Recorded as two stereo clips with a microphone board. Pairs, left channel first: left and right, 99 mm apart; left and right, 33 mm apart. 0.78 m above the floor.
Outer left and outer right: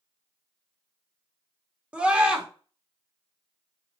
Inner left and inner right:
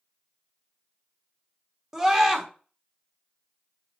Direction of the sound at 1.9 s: 10° right (ahead or behind).